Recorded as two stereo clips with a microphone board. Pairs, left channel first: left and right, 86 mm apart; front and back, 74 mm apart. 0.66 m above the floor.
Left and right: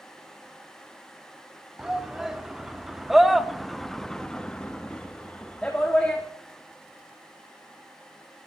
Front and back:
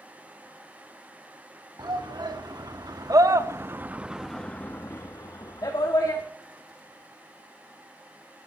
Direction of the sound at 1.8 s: 175° right.